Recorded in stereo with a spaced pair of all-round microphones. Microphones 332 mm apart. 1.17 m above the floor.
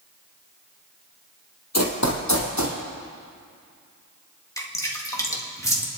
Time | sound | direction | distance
1.7 | running footsteps | 50° left (ahead or behind) | 1.7 m
4.6 | dripping | 10° left (ahead or behind) | 1.7 m